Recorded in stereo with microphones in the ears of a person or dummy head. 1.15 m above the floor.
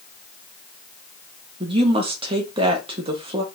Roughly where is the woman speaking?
Right.